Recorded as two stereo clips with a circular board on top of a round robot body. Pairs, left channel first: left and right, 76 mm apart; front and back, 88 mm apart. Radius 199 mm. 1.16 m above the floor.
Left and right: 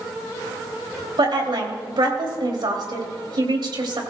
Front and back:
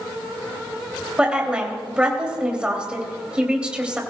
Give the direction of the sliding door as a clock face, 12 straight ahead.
No sliding door in this recording.